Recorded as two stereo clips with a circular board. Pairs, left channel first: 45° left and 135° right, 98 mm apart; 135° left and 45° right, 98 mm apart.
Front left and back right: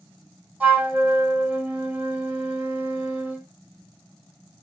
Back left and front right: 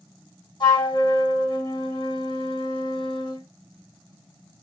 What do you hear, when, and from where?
0.6 s a flute: 155° left, 2.5 m